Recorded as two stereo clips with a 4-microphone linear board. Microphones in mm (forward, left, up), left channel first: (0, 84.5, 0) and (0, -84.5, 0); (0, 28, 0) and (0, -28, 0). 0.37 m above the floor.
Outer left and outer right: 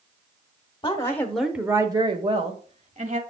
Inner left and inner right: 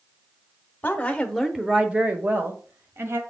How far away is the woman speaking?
About 1.1 m.